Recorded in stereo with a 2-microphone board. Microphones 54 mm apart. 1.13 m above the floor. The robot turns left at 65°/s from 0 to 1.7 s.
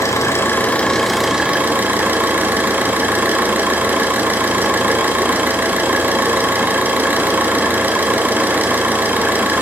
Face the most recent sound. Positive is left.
turn(degrees=-35)